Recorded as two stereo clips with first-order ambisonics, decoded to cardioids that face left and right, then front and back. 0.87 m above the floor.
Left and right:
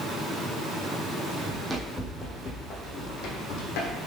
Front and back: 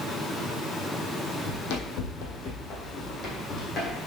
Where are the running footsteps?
10° right, 1.9 m; by 4.0 s 75° left, 2.5 m.